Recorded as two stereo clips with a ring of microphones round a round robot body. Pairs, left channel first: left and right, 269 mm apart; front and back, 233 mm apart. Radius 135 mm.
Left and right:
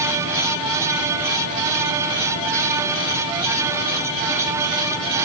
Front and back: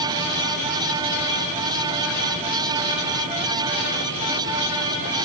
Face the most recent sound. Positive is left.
No sound to turn to.